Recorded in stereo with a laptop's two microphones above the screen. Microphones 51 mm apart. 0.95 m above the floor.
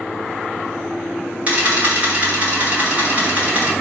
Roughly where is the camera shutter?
Right.